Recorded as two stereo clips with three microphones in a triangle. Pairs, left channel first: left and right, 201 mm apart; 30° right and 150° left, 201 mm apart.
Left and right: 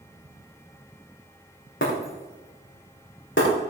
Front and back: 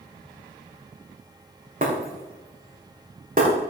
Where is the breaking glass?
105° left, 5.5 m.